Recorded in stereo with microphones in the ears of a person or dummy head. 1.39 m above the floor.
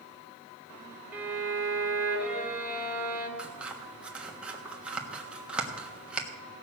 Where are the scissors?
10° right (ahead or behind), 1.3 m.